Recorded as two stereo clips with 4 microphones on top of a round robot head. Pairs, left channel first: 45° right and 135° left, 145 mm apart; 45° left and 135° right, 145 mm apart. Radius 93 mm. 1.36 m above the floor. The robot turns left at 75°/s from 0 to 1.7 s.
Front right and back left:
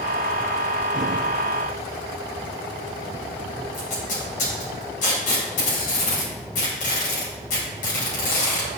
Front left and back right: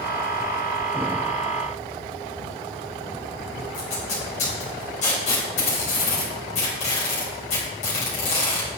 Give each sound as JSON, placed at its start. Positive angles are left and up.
{"t": 3.7, "sound": "tape being pulled", "azimuth_deg": -5, "distance_m": 4.0}